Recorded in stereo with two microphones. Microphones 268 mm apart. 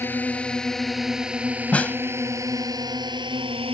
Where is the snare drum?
5° left (ahead or behind).